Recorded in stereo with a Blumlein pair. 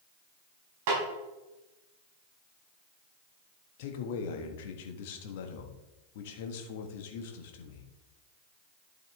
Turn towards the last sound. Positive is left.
turn(degrees=50)